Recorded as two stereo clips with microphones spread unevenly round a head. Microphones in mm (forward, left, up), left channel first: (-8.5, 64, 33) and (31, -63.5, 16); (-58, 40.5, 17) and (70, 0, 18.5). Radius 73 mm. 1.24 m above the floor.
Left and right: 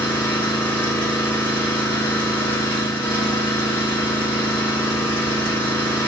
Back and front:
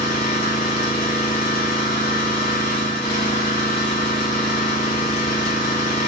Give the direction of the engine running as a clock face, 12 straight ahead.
6 o'clock.